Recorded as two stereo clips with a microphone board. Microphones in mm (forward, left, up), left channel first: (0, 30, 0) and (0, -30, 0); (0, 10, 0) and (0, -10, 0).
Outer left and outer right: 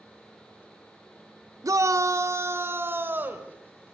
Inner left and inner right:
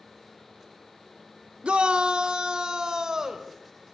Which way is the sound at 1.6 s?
65° right (ahead or behind).